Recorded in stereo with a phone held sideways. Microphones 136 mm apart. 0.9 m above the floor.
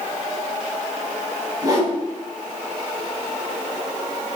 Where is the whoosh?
30° right (ahead or behind), 4 m.